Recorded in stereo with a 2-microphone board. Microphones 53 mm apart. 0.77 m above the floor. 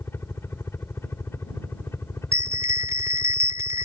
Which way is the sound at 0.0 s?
55° left (ahead or behind).